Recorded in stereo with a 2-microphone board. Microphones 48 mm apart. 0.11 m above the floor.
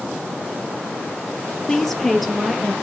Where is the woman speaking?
10° left (ahead or behind), 3 m; by 2.7 s centre (ahead or behind), 3 m.